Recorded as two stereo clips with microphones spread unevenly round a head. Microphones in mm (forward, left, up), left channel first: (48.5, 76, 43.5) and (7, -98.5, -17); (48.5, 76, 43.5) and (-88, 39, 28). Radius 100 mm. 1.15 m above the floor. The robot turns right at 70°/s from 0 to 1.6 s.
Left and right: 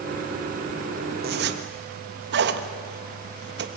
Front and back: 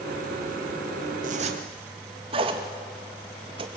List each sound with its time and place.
1.2 s a zipper: 135° right, 1.5 m; by 3.7 s 110° right, 1.5 m